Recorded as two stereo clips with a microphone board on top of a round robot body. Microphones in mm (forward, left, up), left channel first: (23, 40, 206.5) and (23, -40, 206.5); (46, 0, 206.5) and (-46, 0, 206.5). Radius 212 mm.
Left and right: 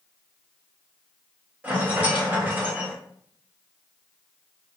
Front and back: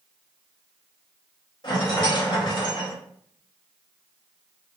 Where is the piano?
No piano in this recording.